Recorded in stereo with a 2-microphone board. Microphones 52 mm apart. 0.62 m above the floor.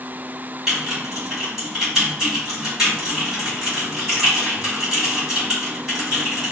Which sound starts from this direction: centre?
Typing on a keyboard, at 0.7 s.